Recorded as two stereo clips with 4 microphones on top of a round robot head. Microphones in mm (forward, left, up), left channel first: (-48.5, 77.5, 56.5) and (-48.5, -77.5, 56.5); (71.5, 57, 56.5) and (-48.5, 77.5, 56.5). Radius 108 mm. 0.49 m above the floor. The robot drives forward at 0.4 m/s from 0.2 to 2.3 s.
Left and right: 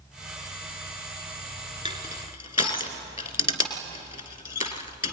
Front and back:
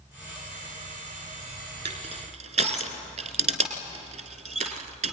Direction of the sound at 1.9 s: 145° left.